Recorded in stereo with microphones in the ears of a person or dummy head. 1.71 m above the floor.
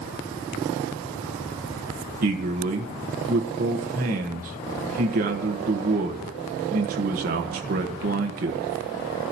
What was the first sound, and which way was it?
A man speaking, 45° right (ahead or behind).